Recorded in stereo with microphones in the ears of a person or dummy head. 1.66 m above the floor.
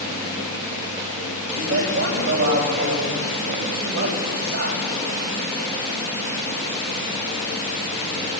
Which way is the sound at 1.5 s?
55° right (ahead or behind).